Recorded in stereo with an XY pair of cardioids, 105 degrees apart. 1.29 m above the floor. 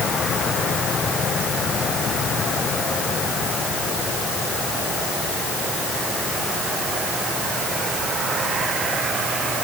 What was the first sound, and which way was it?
Only background noise.